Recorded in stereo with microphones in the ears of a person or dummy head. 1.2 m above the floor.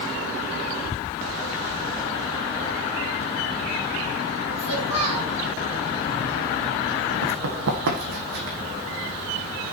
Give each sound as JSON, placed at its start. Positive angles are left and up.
{"t": 4.6, "sound": "a child speaking", "side_deg": -35, "distance_m": 6.0}
{"t": 7.2, "sound": "running footsteps", "side_deg": -65, "distance_m": 3.0}